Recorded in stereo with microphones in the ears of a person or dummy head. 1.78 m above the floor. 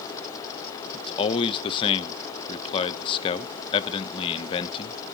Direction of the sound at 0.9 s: 35° left (ahead or behind).